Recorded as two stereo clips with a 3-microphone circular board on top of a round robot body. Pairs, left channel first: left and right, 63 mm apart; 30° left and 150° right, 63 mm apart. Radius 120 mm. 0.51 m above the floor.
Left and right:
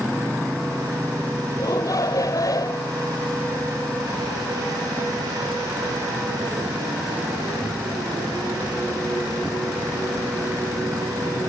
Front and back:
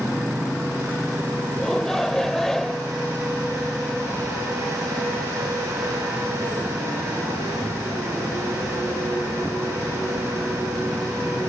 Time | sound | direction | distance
1.6 | a shout | 115° left | ?